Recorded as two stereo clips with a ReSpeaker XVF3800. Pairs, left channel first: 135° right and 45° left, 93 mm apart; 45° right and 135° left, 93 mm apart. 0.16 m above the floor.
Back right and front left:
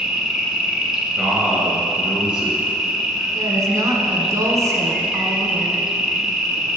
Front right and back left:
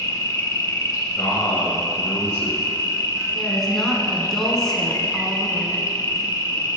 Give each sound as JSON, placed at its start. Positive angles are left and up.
{"t": 0.0, "sound": "an insect", "azimuth_deg": -40, "distance_m": 0.9}
{"t": 1.2, "sound": "a man speaking", "azimuth_deg": -25, "distance_m": 1.2}
{"t": 3.3, "sound": "a woman speaking", "azimuth_deg": 40, "distance_m": 1.2}